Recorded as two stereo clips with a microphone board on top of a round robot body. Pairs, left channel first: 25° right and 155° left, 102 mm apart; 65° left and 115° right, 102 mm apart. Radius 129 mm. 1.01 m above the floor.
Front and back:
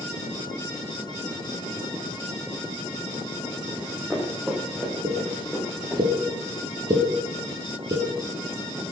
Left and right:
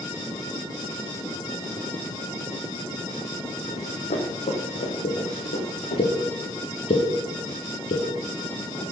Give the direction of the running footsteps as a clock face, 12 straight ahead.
9 o'clock.